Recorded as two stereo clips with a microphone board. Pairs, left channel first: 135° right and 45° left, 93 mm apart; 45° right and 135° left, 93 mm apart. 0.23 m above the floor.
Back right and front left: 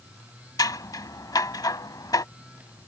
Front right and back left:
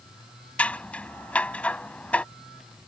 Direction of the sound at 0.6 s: 115° right.